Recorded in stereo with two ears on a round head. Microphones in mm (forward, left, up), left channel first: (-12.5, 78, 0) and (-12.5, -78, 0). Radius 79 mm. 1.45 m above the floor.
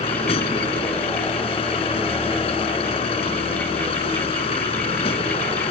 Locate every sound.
0.0 s a vehicle: 30° left (ahead or behind)